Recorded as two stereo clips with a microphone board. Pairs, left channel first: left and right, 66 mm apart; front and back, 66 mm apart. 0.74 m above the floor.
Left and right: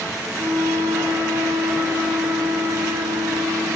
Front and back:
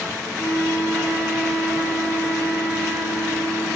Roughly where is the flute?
Right.